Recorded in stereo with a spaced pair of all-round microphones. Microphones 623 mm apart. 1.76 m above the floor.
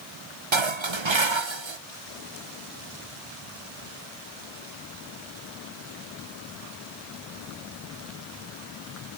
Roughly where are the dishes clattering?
Right.